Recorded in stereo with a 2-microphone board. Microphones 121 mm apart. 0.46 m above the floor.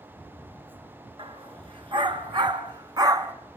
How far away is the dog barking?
About 2.5 m.